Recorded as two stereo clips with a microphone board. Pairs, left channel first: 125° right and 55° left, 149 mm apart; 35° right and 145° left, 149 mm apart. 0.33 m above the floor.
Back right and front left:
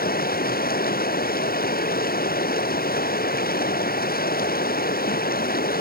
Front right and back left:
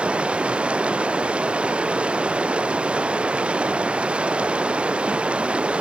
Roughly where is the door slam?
No door slam in this recording.